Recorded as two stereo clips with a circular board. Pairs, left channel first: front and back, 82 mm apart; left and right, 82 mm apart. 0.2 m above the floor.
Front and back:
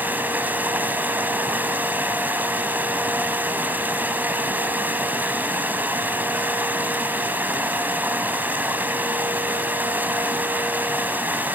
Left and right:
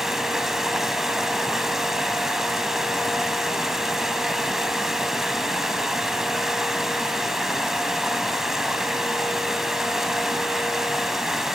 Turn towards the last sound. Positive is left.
turn(degrees=-170)